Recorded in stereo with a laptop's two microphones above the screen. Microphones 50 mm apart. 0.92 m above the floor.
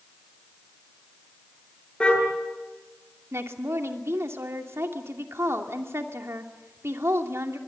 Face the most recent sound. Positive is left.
turn(degrees=-60)  # may be behind; listen again after turning